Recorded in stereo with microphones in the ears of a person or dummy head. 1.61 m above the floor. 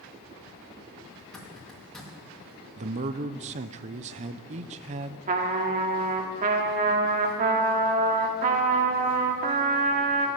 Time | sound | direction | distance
1.2 | a zipper | centre (ahead or behind) | 2.5 m
2.8 | a man speaking | 40° right (ahead or behind) | 0.6 m
5.3 | a trumpet | 40° right (ahead or behind) | 1.4 m